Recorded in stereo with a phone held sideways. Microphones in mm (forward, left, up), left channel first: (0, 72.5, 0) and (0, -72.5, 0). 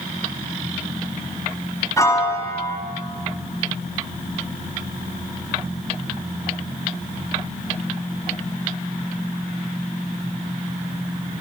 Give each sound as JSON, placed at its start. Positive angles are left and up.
{"t": 2.0, "sound": "a piano", "side_deg": 20, "distance_m": 3.5}